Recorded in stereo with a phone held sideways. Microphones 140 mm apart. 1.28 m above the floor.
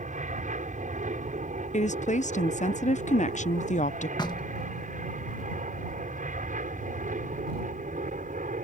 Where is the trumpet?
I don't hear a trumpet.